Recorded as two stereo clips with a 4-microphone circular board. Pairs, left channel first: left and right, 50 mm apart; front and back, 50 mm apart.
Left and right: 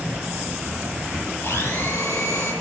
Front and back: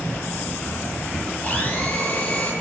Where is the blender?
65° left, 9.5 m.